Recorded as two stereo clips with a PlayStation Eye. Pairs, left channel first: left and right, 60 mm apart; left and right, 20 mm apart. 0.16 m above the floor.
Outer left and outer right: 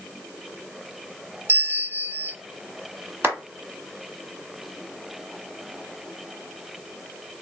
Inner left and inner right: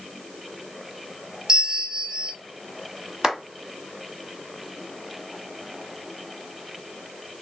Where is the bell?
40° right (ahead or behind), 0.6 m.